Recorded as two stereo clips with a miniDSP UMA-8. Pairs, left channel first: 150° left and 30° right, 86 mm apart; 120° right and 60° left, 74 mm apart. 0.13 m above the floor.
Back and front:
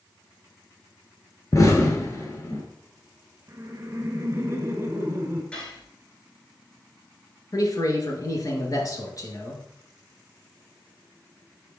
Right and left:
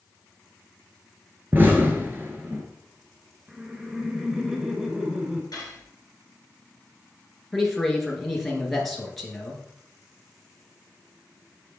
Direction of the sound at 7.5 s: 155° left.